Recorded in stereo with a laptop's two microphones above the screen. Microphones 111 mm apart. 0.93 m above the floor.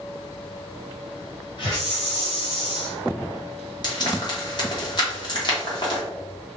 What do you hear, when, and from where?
1.6 s a hiss: 50° left (ahead or behind), 1.4 m
3.8 s frying: 40° left (ahead or behind), 1.1 m